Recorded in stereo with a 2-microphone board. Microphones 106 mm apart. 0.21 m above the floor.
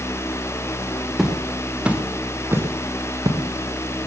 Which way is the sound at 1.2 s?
Centre (ahead or behind).